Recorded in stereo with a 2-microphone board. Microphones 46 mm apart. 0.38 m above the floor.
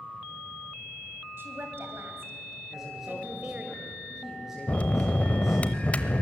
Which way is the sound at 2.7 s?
10° right (ahead or behind).